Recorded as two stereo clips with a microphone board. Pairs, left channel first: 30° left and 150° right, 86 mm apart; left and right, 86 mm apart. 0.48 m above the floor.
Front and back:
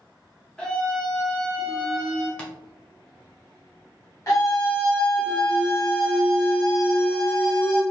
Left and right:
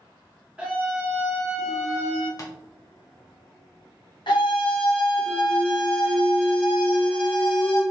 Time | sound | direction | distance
0.6 | a scream | 35° right | 0.9 m
2.4 | tapping | 105° left | 0.7 m
4.3 | a scream | 75° left | 1.7 m